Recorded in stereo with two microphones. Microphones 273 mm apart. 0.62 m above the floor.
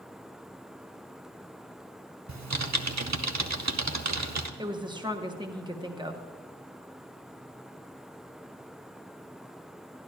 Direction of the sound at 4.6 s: 15° right (ahead or behind).